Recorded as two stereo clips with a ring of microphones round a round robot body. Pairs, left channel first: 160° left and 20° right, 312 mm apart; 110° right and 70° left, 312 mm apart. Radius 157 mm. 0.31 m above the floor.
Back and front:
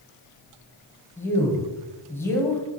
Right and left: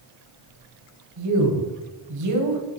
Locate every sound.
1.2 s a man speaking: 75° left, 2.5 m